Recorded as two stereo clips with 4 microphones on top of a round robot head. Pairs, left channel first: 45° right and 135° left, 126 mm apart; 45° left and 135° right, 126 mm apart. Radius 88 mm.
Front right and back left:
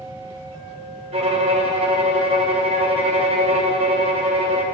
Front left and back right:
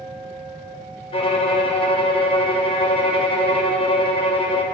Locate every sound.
1.1 s a violin: 90° left, 1.0 m